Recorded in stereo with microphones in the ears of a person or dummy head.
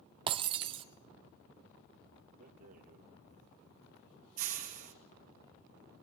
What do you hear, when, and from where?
0.3 s breaking glass: 30° right (ahead or behind), 1.4 m
2.4 s a rattle: 40° right (ahead or behind), 1.9 m